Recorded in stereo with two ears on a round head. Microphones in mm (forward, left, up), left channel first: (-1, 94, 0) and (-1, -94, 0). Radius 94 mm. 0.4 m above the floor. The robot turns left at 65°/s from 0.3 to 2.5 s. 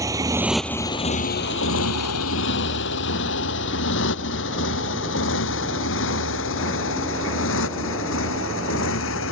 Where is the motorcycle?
15° right (ahead or behind); by 9.3 s 65° left (ahead or behind).